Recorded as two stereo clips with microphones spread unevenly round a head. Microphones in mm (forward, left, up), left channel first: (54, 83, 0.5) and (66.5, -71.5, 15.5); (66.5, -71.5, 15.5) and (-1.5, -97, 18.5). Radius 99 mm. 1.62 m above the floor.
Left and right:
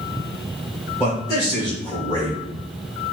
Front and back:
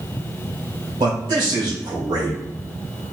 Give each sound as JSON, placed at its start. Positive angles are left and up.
{"t": 1.0, "sound": "a man speaking", "azimuth_deg": 170, "distance_m": 1.3}